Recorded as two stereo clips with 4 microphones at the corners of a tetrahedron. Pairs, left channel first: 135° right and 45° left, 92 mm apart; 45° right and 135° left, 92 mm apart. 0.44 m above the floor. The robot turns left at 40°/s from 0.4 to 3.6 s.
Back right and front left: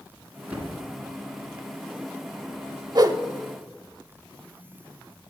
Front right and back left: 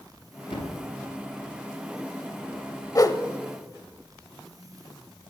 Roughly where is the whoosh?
Ahead.